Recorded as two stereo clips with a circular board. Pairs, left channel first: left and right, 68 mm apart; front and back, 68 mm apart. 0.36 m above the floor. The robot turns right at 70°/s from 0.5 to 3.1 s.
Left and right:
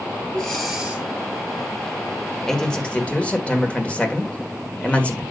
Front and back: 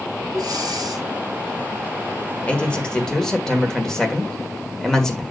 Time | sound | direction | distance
0.3 | breathing | 170° left | 2.5 m
2.5 | a man speaking | 20° left | 1.5 m